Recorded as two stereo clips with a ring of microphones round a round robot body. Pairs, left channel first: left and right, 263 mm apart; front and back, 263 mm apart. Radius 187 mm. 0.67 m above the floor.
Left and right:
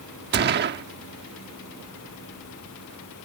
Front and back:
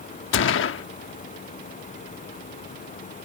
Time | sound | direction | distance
0.3 | a gunshot | 40° right | ?